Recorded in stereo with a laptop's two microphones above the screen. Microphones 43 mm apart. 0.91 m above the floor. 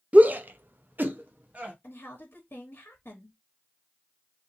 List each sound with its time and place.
0.1 s a shout: 35° right (ahead or behind), 0.5 m
1.8 s a woman speaking: 60° left (ahead or behind), 1.1 m